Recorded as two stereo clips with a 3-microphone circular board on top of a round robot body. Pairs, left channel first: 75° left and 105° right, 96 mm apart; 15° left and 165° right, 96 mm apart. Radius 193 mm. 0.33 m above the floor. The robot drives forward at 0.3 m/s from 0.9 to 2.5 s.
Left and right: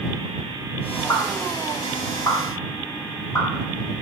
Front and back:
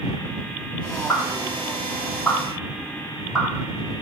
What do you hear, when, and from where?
1.1 s a pop: 70° left, 1.3 m; by 3.5 s 105° left, 1.3 m